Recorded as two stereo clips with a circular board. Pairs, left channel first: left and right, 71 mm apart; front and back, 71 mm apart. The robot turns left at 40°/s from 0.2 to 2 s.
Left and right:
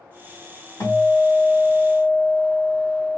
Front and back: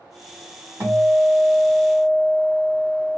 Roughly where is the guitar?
Behind left.